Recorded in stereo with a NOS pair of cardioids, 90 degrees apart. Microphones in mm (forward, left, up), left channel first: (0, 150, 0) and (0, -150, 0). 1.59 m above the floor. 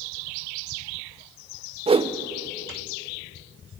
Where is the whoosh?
20° right, 0.9 m.